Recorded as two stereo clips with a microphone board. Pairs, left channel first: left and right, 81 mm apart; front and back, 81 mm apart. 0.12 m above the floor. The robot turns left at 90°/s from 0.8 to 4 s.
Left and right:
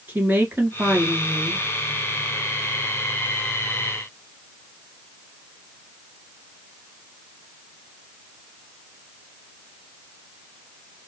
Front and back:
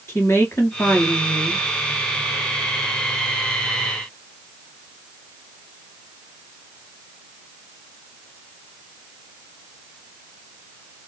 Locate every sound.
0.1 s a woman speaking: 35° right, 2 m; by 1.6 s 110° right, 2 m